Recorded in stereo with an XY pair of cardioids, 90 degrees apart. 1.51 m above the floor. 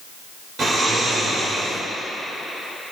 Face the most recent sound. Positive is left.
turn(degrees=-60)